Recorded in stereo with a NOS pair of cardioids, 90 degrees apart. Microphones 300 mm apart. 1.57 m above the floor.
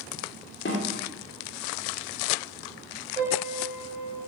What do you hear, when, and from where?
0.7 s a snare drum: 35° left, 1.8 m
3.2 s a piano: 25° right, 2.5 m